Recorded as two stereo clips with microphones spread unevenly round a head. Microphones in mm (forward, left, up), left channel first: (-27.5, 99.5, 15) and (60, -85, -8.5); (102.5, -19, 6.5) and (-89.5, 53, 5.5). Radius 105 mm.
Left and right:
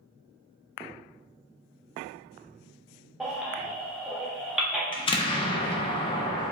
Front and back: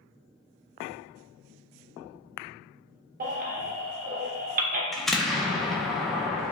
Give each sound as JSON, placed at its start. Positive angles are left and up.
{"t": 3.2, "sound": "a baby crying", "azimuth_deg": -155, "distance_m": 0.6}
{"t": 4.9, "sound": "an explosion", "azimuth_deg": 70, "distance_m": 0.5}